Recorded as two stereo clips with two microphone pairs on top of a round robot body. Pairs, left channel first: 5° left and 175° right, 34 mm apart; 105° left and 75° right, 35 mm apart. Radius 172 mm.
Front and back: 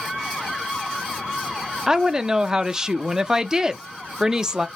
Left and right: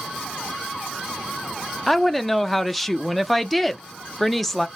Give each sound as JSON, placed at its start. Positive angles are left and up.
{"t": 1.9, "sound": "a woman speaking", "azimuth_deg": -175, "distance_m": 0.7}